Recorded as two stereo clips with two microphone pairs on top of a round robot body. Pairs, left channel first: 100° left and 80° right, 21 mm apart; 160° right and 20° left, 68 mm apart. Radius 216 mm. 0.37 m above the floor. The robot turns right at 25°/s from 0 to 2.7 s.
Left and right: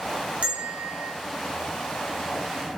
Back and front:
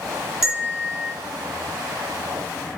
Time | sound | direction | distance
0.4 | a bell | 55° right | 0.7 m